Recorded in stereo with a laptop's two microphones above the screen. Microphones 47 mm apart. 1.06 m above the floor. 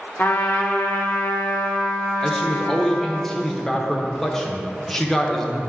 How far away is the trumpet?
About 1.2 m.